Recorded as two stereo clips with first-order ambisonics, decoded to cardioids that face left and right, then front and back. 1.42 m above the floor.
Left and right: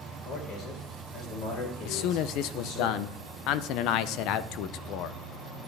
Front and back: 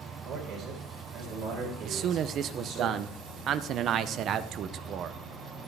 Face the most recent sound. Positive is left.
turn(degrees=125)